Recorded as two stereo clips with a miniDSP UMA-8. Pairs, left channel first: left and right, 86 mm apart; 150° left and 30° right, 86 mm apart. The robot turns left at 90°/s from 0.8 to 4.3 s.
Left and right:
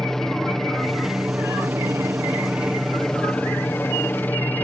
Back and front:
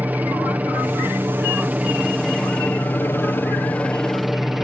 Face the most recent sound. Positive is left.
turn(degrees=55)